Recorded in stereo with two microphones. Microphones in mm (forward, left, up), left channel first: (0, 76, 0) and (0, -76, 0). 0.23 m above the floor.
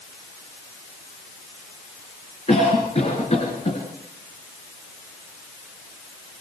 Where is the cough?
45° left (ahead or behind), 3.5 m.